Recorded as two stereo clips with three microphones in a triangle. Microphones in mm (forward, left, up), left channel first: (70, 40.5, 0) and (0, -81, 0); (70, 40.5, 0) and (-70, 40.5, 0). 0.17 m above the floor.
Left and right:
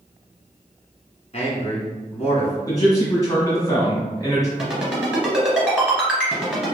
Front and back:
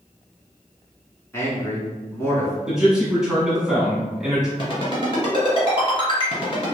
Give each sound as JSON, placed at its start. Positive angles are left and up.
{"t": 1.3, "sound": "a man speaking", "azimuth_deg": 65, "distance_m": 1.6}
{"t": 2.7, "sound": "a man speaking", "azimuth_deg": 100, "distance_m": 1.3}
{"t": 4.6, "sound": "a ringtone", "azimuth_deg": -40, "distance_m": 1.7}